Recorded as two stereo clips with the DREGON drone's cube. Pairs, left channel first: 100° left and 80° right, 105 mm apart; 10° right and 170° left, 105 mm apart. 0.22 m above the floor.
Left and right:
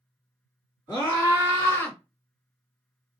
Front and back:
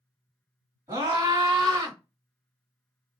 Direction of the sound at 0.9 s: 135° left.